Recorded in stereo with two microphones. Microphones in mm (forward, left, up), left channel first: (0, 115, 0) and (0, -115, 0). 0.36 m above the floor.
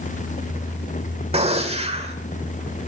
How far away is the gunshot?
About 1.5 m.